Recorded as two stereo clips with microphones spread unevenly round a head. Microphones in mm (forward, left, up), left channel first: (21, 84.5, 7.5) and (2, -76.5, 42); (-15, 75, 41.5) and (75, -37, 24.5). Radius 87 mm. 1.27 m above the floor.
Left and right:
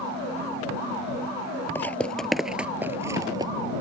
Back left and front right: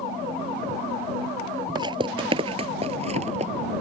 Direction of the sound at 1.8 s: 5° right.